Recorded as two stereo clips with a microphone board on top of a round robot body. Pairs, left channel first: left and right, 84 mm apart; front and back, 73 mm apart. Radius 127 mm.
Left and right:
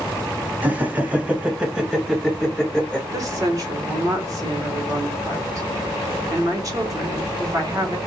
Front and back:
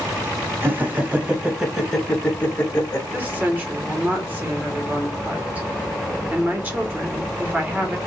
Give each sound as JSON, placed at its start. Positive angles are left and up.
{"t": 0.6, "sound": "laughter", "azimuth_deg": -145, "distance_m": 1.3}
{"t": 3.1, "sound": "a woman speaking", "azimuth_deg": -120, "distance_m": 1.5}